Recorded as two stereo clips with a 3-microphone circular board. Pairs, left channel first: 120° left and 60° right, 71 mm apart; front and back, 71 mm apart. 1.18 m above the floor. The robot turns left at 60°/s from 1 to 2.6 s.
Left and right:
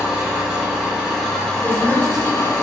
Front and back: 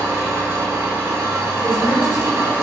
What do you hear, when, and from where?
0.0 s an engine running: 135° right, 1.3 m; by 2.6 s 125° left, 1.3 m
1.6 s a woman speaking: 10° right, 1.9 m; by 2.5 s 65° right, 1.9 m